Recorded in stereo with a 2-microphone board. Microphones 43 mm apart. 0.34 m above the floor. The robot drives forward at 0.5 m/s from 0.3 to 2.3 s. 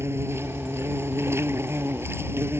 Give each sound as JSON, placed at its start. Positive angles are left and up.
{"t": 0.0, "sound": "an insect", "side_deg": -75}